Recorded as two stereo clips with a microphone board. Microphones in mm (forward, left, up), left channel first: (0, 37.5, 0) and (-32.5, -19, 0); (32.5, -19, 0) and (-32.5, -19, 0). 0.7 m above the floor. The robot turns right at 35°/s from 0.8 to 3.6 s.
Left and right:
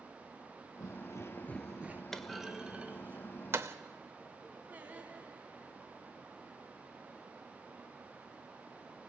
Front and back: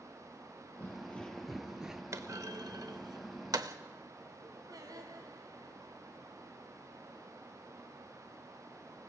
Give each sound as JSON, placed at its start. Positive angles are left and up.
{"t": 0.8, "sound": "footsteps", "azimuth_deg": 55, "distance_m": 1.4}
{"t": 2.1, "sound": "a clunk", "azimuth_deg": 140, "distance_m": 0.9}
{"t": 4.7, "sound": "singing", "azimuth_deg": 175, "distance_m": 2.5}